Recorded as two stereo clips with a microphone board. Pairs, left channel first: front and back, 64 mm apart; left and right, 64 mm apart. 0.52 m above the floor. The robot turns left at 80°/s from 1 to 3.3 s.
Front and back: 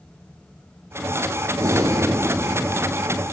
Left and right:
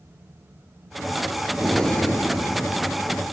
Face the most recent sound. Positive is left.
turn(degrees=50)